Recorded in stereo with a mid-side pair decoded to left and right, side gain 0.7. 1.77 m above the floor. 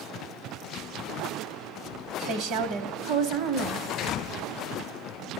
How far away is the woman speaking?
About 1.3 m.